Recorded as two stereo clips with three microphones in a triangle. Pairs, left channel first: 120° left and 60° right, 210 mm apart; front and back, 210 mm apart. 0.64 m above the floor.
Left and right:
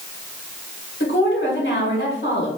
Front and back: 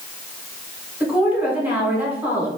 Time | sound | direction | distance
1.0 | a woman speaking | 100° left | 1.4 m